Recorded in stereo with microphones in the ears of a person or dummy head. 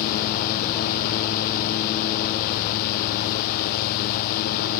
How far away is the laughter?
I don't hear laughter.